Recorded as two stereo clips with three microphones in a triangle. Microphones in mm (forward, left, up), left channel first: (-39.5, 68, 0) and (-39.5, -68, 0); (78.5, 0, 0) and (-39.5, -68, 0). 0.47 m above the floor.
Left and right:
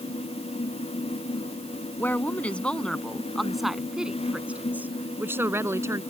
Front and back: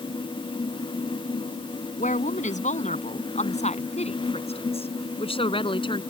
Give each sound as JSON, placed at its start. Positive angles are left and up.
{"t": 2.0, "sound": "a woman speaking", "azimuth_deg": 15}